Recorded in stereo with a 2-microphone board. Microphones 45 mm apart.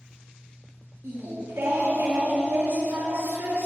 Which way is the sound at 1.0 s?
70° right (ahead or behind).